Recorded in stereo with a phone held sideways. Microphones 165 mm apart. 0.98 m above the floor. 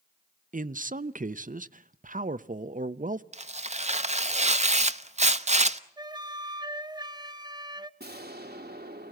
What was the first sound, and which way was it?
A man speaking, 55° right (ahead or behind).